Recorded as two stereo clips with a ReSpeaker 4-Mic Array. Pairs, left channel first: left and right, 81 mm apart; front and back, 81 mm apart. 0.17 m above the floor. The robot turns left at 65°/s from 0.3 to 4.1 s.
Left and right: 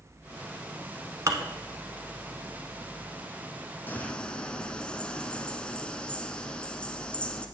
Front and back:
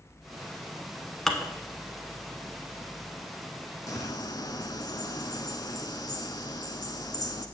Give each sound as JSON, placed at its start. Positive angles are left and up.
{"t": 1.3, "sound": "dishes clattering", "azimuth_deg": -85, "distance_m": 1.0}
{"t": 3.9, "sound": "a bird", "azimuth_deg": 30, "distance_m": 0.9}